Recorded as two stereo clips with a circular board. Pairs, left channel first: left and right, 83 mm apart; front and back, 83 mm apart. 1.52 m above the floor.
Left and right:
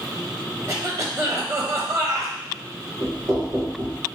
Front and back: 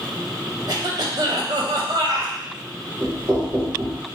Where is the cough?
145° right, 1.1 m.